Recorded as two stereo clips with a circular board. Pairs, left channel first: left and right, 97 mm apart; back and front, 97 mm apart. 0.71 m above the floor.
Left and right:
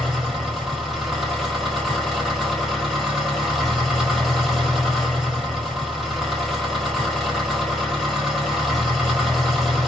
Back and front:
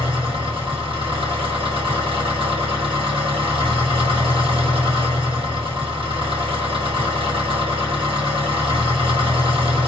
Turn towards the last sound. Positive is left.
turn(degrees=-5)